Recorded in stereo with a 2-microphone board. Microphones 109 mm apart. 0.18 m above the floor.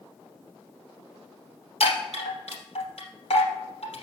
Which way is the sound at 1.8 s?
70° left (ahead or behind).